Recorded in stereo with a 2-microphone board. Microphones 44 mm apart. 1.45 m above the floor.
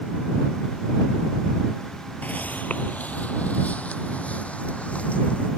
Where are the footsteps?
35° left (ahead or behind); by 5.5 s 30° left (ahead or behind).